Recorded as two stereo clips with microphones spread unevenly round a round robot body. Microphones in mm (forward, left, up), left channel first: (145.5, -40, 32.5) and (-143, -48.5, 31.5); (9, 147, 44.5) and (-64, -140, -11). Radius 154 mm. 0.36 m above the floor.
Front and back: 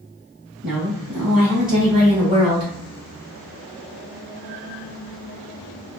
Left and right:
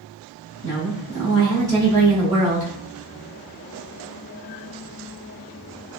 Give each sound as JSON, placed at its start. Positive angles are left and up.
{"t": 0.6, "sound": "a woman speaking", "azimuth_deg": 100, "distance_m": 1.5}